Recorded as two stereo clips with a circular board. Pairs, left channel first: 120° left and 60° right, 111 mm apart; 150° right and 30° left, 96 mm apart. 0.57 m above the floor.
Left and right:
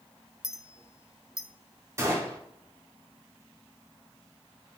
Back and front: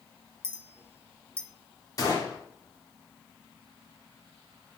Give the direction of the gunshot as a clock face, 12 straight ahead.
4 o'clock.